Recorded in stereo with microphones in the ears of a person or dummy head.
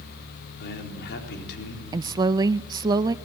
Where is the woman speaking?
25° right (ahead or behind), 0.6 m.